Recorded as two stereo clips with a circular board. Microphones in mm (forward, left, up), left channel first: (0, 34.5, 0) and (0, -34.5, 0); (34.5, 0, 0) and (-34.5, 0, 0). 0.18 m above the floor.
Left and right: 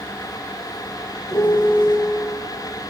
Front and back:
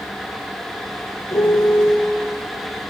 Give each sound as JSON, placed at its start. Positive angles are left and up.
{"t": 1.3, "sound": "a piano", "azimuth_deg": 40, "distance_m": 2.5}